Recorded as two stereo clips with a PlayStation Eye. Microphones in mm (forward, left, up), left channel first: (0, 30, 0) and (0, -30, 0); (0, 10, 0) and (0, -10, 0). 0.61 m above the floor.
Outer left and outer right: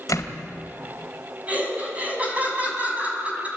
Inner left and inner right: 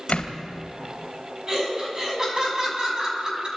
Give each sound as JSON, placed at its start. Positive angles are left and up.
{"t": 0.1, "sound": "a door slam", "side_deg": 65, "distance_m": 2.5}
{"t": 1.5, "sound": "laughter", "side_deg": -25, "distance_m": 5.5}